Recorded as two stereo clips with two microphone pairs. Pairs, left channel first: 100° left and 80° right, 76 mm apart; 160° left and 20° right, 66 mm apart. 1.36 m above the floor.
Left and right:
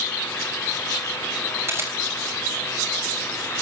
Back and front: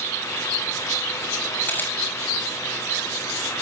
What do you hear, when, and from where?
1.7 s a camera shutter: 140° right, 8 m